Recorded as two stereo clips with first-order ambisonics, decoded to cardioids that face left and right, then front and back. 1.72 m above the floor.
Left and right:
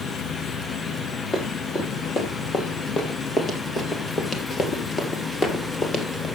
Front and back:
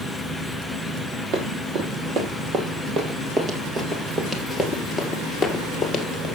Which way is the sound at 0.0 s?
85° left.